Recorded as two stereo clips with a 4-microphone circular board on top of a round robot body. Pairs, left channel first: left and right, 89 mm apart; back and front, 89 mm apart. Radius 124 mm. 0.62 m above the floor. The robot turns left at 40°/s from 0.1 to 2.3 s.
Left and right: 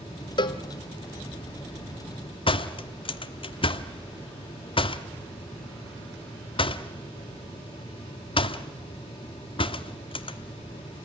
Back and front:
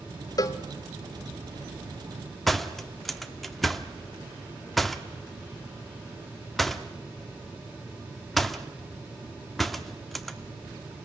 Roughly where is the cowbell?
Behind left.